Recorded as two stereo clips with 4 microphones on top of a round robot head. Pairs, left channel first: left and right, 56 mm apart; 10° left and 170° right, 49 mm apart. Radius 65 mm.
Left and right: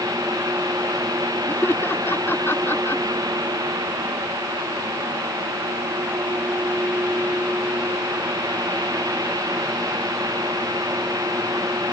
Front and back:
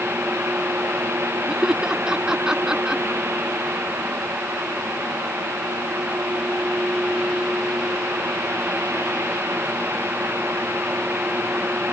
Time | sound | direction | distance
1.5 | laughter | 120° left | ?